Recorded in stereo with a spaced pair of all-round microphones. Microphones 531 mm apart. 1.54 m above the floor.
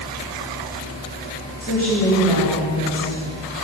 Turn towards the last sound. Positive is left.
turn(degrees=-50)  # may be behind; listen again after turning